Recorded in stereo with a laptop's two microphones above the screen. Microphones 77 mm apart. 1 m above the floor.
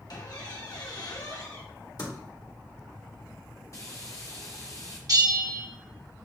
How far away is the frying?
About 0.7 m.